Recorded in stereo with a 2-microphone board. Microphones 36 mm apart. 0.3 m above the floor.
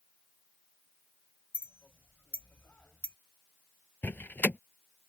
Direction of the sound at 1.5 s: 50° left (ahead or behind).